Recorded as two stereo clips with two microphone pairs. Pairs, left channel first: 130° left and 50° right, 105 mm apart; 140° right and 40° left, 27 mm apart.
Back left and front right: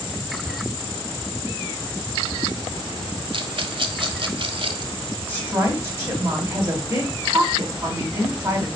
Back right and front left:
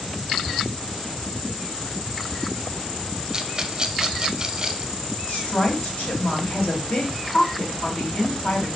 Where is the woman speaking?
115° right, 2 m.